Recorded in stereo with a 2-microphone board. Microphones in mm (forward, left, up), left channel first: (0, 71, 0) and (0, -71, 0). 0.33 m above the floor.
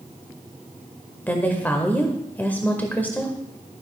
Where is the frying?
No frying in this recording.